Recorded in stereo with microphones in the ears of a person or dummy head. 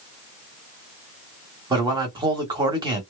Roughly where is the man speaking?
Right.